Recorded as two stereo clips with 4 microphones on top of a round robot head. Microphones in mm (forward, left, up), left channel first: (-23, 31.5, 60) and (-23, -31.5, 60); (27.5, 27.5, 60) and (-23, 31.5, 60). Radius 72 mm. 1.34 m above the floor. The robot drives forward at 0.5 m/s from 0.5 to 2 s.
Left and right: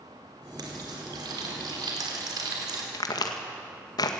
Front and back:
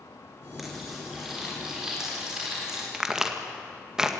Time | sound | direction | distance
0.6 | frying | 95° right | 4.5 m
2.9 | a crack | 100° left | 1.9 m